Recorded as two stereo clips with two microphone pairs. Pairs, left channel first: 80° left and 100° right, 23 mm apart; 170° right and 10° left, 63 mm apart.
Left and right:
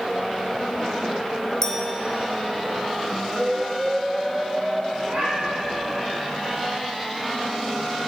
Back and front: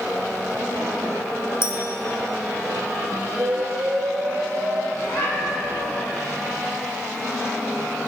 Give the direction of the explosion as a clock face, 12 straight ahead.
1 o'clock.